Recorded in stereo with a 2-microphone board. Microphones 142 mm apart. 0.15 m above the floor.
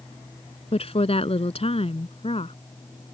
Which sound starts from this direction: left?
A woman speaking, at 0.7 s.